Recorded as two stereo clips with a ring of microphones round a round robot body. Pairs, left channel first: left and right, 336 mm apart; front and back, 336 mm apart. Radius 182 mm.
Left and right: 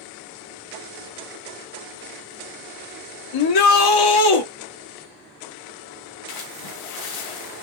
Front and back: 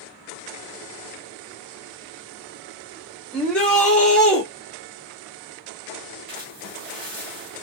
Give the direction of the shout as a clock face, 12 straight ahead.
9 o'clock.